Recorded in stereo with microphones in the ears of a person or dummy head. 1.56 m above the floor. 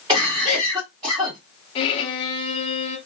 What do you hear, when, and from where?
0.1 s a cough: 10° right (ahead or behind), 1.5 m
1.8 s a violin: 30° left (ahead or behind), 0.6 m